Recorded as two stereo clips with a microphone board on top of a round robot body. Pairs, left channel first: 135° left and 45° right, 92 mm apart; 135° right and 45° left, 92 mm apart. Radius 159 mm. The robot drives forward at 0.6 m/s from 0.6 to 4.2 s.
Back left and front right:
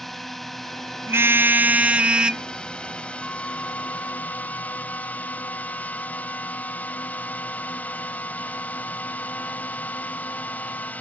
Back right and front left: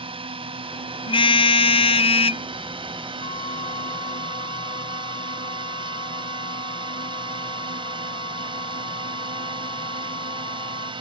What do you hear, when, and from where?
0.0 s a drone: 50° left; by 11.0 s 65° left
1.1 s a car horn: 110° right; by 2.4 s 125° right
3.2 s a flute: 150° right; by 10.9 s 155° right